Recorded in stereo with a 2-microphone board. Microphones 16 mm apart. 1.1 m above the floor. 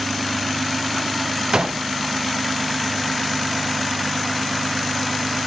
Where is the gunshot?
50° right (ahead or behind), 0.6 m.